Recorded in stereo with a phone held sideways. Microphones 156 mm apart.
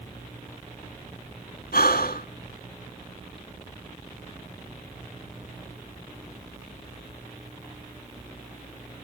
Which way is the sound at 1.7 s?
75° left (ahead or behind).